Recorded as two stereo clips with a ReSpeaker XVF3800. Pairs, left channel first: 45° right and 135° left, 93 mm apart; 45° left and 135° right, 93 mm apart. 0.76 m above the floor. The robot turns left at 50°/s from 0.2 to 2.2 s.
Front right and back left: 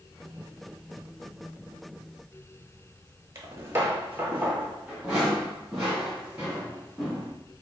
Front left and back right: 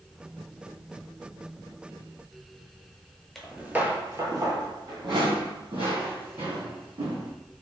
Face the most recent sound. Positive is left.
turn(degrees=-135)